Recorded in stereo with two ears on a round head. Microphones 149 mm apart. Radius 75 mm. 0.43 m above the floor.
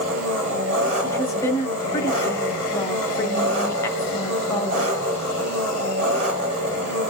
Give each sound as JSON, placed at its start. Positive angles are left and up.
{"t": 0.0, "sound": "an engine running", "side_deg": -40, "distance_m": 5.0}
{"t": 1.0, "sound": "a woman speaking", "side_deg": 20, "distance_m": 1.7}